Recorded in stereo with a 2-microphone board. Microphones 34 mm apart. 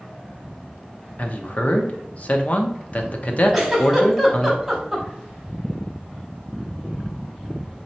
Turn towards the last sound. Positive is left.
turn(degrees=0)  # may be behind; listen again after turning